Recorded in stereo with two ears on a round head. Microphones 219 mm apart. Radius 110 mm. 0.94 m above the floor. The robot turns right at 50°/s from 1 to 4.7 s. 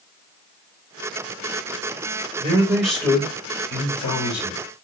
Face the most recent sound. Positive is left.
turn(degrees=90)